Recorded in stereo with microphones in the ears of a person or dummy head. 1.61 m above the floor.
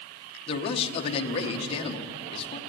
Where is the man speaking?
30° left (ahead or behind), 1.7 m.